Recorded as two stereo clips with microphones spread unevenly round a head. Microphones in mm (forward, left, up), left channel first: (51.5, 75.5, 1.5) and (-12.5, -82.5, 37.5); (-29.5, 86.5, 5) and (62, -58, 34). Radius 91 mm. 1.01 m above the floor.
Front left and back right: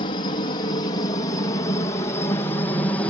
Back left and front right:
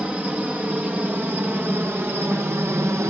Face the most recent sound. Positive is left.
turn(degrees=20)